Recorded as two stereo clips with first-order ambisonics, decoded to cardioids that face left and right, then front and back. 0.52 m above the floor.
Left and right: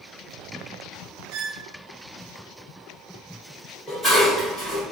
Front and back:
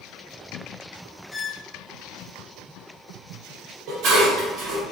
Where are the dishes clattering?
175° right, 1.5 m.